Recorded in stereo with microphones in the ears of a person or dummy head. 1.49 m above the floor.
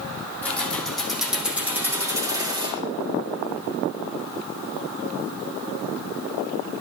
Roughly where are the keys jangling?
Centre.